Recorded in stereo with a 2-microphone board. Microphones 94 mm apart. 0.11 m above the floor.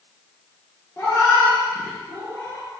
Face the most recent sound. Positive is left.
turn(degrees=35)  # may be behind; listen again after turning